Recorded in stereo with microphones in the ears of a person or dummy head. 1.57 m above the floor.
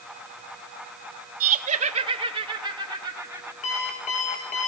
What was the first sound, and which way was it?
Laughter, 40° right (ahead or behind).